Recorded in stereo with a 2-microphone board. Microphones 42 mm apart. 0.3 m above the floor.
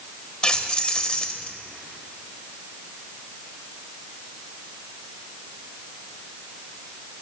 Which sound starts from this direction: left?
Keys jangling, at 0.4 s.